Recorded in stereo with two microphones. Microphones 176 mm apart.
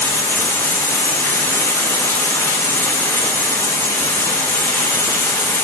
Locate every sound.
0.0 s running water: 15° left (ahead or behind), 0.7 m